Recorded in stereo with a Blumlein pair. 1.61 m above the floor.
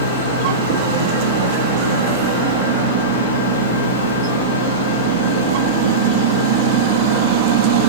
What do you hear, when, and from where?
0.0 s a fan: 65° left, 1.0 m